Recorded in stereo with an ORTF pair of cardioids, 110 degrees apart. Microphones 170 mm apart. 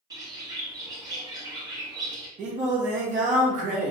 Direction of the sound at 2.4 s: 45° right.